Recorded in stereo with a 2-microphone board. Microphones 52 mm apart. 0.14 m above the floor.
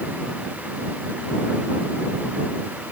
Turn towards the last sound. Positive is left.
No sound to turn to.